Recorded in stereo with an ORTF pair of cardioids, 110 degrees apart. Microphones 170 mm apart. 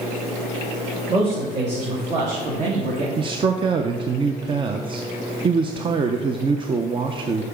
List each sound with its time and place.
1.1 s a man speaking: 40° right, 2.5 m; by 3.1 s 60° right, 1.9 m
3.2 s a man speaking: 30° right, 0.6 m